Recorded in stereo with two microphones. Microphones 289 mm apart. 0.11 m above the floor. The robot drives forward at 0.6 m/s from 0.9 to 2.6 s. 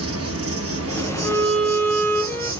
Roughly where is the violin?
Centre.